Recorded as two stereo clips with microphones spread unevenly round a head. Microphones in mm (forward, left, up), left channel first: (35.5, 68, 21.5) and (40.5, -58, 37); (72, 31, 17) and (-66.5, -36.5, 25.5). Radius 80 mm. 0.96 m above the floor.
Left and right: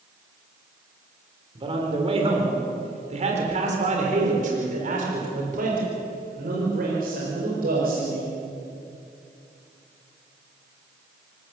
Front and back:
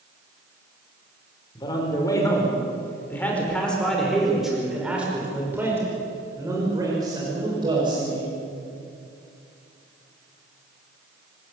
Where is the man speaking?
40° right, 4.5 m; by 8.3 s 95° right, 5.5 m.